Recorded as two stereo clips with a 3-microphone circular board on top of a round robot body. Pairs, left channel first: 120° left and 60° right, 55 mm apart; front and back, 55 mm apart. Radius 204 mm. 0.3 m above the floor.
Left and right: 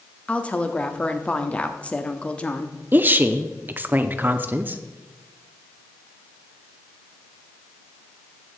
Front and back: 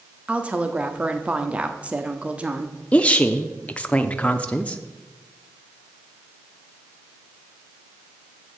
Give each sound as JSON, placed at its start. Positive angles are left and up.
{"t": 0.3, "sound": "a woman speaking", "azimuth_deg": 150, "distance_m": 1.1}
{"t": 2.9, "sound": "a woman speaking", "azimuth_deg": -50, "distance_m": 1.0}